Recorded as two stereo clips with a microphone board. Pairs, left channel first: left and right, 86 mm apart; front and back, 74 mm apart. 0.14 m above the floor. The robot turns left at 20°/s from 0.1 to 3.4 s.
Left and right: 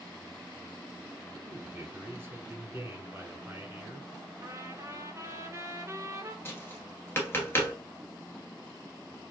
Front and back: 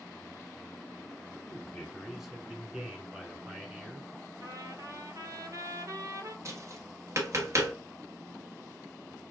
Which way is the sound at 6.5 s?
145° left.